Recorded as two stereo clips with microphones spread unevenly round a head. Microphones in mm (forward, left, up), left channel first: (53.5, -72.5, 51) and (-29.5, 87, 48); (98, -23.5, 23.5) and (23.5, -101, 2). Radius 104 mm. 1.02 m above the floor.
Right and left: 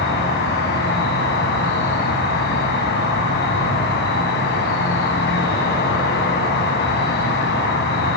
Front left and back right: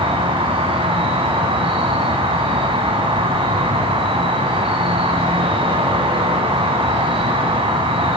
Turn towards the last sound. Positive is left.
turn(degrees=-100)